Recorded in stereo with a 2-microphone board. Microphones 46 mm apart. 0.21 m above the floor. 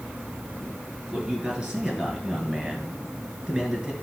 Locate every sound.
1.1 s a man speaking: 15° right (ahead or behind), 3 m